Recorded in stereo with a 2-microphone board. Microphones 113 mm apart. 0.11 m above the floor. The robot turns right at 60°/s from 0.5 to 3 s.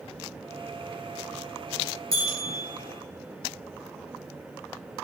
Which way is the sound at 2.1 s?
30° left (ahead or behind).